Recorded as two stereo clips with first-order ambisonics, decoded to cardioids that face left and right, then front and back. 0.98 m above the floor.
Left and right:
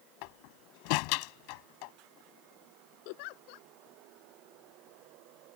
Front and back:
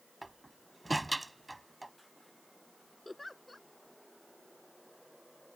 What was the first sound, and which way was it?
A door slam, 95° left.